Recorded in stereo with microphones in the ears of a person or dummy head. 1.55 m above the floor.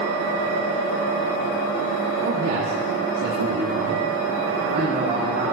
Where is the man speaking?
55° right (ahead or behind), 2.5 m; by 5.5 s 35° right (ahead or behind), 3.5 m.